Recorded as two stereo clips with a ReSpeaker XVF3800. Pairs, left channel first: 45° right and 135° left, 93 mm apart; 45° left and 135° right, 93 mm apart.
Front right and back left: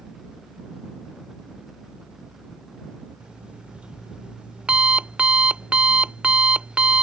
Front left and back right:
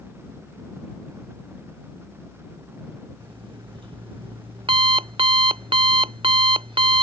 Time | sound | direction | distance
3.2 | an alarm clock | 145° right | ?